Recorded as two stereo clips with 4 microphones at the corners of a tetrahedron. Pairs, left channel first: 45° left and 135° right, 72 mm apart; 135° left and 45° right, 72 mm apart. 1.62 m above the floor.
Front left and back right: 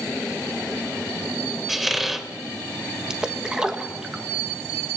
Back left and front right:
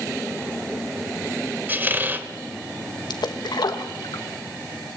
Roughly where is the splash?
Behind left.